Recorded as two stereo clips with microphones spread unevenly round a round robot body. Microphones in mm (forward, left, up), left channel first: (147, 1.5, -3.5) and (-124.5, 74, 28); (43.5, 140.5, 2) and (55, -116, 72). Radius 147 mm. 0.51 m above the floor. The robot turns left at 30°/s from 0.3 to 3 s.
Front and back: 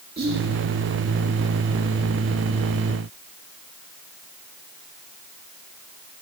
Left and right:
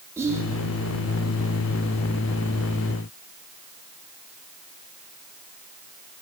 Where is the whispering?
170° left, 0.8 m; by 0.5 s 165° left, 0.8 m.